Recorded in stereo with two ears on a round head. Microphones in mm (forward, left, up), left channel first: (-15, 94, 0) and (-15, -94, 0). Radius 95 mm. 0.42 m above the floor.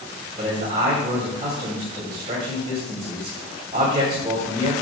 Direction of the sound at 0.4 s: 35° right (ahead or behind).